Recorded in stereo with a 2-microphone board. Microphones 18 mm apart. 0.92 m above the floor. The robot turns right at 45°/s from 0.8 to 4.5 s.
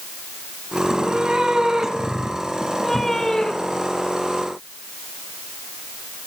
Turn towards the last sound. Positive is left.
turn(degrees=95)